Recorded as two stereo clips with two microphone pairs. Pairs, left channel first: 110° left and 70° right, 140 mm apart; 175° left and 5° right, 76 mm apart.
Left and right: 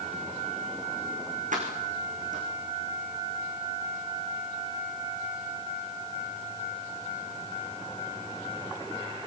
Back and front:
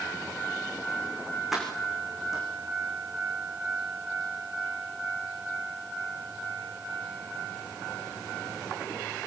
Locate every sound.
1.5 s keys jangling: 90° right, 6.5 m